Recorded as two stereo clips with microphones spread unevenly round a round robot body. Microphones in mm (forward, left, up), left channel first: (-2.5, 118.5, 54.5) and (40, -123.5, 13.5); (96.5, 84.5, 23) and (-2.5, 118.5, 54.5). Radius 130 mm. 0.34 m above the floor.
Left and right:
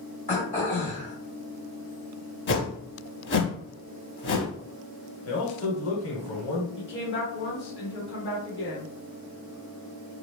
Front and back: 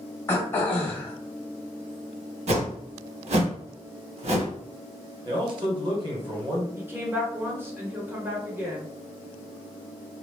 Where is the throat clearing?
40° left, 1.4 m.